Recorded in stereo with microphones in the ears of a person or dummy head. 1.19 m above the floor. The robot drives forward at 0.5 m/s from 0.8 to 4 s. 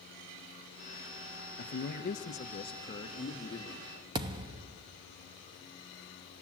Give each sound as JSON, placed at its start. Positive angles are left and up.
{"t": 1.6, "sound": "a man speaking", "side_deg": 50, "distance_m": 0.9}
{"t": 4.2, "sound": "a thud", "side_deg": -20, "distance_m": 0.6}